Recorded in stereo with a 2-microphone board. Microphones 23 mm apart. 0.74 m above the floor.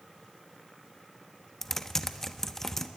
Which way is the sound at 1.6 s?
15° left (ahead or behind).